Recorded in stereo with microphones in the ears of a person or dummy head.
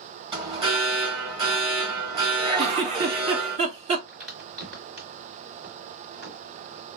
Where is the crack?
45° right (ahead or behind), 2.5 m.